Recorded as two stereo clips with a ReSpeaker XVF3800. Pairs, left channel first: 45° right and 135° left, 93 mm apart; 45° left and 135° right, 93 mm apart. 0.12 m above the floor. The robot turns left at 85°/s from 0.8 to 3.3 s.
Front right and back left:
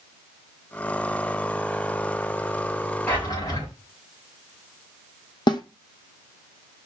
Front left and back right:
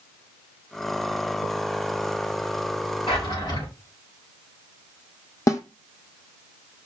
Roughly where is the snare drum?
Ahead.